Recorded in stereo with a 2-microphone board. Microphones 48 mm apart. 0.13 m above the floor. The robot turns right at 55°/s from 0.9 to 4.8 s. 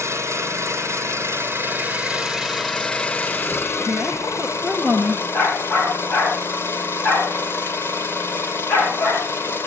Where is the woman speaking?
40° right, 2 m; by 5.2 s 15° left, 2 m.